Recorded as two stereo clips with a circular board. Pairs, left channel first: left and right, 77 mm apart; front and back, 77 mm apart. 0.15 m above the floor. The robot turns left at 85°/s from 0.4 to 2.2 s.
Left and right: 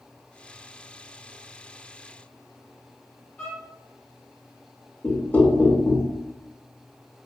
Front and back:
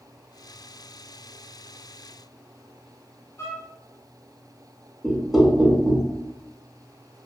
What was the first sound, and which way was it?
A violin, 25° left.